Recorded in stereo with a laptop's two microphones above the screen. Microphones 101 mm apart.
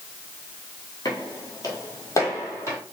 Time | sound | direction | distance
1.1 | footsteps | 40° left (ahead or behind) | 1.2 m